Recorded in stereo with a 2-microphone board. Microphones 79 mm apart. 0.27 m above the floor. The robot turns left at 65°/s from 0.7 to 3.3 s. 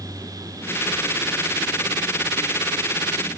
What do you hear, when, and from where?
Only background noise.